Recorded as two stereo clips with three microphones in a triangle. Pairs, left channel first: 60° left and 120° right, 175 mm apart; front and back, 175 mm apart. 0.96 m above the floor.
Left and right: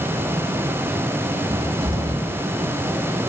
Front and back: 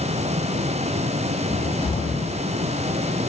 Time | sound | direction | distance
1.5 | a cupboard door | 50° right | 2 m